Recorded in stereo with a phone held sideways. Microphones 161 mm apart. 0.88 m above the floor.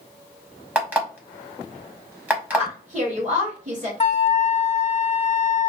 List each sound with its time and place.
0.8 s an alarm clock: 10° right (ahead or behind), 0.8 m
2.5 s a woman speaking: 45° right (ahead or behind), 1.4 m
4.0 s a flute: 45° left (ahead or behind), 0.7 m